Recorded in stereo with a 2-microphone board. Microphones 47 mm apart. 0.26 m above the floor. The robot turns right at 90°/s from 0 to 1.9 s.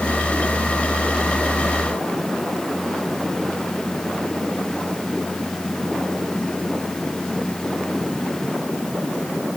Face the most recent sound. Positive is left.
No sound to turn to.